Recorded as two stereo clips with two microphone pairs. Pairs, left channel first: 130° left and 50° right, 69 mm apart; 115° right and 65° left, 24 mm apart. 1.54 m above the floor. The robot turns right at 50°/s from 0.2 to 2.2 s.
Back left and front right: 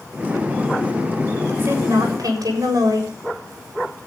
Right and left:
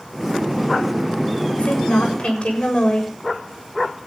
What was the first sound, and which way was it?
A woman speaking, 110° right.